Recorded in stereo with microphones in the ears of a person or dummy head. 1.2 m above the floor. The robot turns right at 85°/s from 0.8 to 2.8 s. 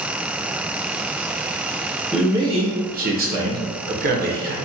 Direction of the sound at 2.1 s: Straight behind.